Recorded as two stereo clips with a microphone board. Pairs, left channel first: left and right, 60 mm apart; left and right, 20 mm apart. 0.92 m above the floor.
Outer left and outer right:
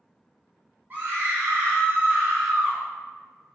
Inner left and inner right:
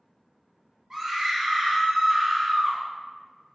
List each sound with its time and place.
0.9 s a scream: 35° right (ahead or behind), 0.9 m; by 2.8 s 30° right (ahead or behind), 0.9 m